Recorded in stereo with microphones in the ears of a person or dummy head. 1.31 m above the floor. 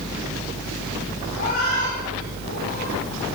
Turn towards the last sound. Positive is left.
turn(degrees=40)  # may be behind; listen again after turning